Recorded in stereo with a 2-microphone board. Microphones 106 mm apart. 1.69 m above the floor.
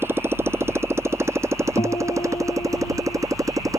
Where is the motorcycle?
20° right (ahead or behind); by 3.8 s 30° right (ahead or behind).